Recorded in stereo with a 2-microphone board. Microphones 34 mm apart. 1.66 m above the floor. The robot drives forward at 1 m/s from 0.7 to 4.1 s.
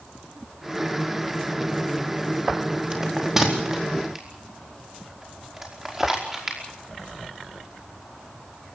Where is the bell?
15° right (ahead or behind), 4 m; by 6.6 s 10° right (ahead or behind), 5 m.